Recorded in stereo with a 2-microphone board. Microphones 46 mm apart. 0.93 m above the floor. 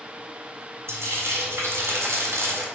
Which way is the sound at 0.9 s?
70° right (ahead or behind).